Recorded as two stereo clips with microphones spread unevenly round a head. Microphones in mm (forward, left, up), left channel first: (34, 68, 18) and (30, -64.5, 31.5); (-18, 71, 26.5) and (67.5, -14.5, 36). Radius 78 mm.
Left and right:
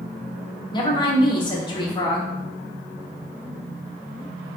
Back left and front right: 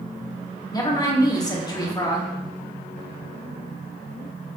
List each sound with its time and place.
0.7 s a woman speaking: 110° left, 0.9 m